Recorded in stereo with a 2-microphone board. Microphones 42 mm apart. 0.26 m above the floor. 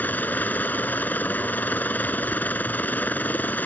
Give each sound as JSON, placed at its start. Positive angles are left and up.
{"t": 0.0, "sound": "a helicopter", "side_deg": 45}